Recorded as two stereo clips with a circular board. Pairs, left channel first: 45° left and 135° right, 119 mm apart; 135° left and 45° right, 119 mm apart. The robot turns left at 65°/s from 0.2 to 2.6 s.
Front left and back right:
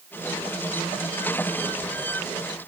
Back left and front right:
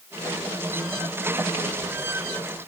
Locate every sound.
Only background noise.